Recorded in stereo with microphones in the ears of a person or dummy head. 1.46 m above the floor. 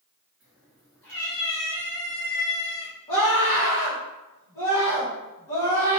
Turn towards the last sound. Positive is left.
turn(degrees=20)  # may be behind; listen again after turning